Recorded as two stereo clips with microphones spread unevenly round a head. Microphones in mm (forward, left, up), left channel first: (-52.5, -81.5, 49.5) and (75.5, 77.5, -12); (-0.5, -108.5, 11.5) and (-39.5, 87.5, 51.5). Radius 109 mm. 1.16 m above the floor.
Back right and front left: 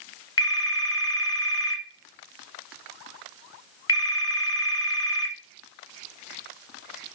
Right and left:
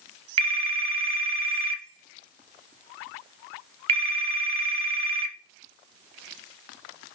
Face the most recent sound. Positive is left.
turn(degrees=160)